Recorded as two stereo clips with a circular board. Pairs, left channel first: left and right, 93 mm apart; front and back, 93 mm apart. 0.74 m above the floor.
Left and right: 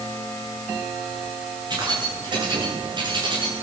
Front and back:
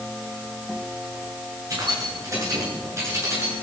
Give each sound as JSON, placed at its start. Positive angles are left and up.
{"t": 1.7, "sound": "keys jangling", "azimuth_deg": -130, "distance_m": 8.0}